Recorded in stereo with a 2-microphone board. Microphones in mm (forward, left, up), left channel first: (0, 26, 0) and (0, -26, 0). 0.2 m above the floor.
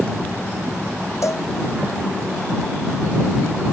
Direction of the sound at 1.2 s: 70° left (ahead or behind).